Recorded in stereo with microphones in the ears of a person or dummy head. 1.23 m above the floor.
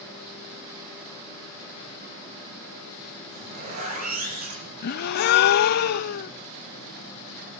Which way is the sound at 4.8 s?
60° left (ahead or behind).